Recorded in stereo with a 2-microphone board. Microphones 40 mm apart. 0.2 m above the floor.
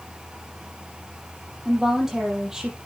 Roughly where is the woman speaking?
Centre.